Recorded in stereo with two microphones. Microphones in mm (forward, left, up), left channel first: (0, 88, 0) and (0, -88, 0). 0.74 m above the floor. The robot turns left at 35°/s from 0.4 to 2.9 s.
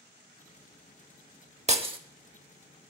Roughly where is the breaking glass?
Right.